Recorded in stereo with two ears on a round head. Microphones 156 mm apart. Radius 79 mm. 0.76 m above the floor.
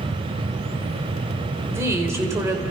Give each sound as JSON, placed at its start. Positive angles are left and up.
{"t": 1.7, "sound": "a woman speaking", "side_deg": -15, "distance_m": 3.5}